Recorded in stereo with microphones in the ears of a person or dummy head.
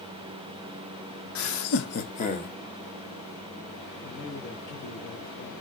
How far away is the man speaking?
About 1.9 m.